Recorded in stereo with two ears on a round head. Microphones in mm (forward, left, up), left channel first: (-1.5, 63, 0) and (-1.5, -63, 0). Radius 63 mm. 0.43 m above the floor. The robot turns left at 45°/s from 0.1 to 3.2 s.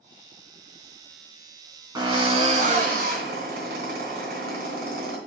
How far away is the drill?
About 3 m.